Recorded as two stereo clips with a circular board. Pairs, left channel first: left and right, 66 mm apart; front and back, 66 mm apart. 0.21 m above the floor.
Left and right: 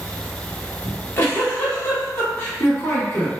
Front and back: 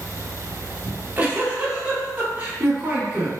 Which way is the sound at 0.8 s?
130° left.